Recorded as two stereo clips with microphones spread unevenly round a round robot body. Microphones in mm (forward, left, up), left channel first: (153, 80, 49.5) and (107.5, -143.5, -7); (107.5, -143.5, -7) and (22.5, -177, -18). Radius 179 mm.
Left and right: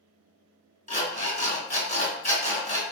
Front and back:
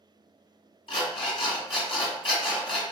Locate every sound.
0.9 s an alarm clock: 20° left, 1.9 m